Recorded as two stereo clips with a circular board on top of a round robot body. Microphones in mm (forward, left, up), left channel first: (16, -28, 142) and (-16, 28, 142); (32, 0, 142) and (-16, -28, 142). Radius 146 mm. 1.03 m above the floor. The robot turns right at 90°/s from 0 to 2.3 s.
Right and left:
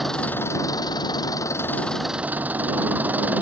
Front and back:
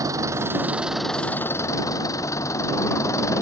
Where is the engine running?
150° right; by 3.4 s 55° left.